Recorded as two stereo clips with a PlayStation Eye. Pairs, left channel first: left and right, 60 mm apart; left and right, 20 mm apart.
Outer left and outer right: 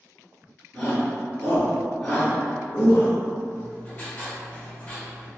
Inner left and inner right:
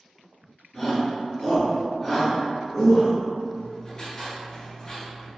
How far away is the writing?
About 1.8 m.